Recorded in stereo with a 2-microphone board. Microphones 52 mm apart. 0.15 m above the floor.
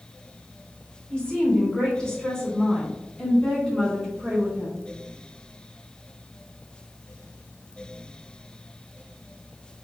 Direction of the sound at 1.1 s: 20° left (ahead or behind).